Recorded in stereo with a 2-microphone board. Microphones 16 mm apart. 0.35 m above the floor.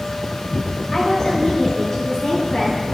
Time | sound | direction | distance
0.9 | a woman speaking | 40° left (ahead or behind) | 1.9 m